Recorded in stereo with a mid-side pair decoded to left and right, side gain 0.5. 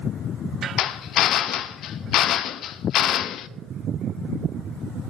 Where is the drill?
65° left, 0.6 m.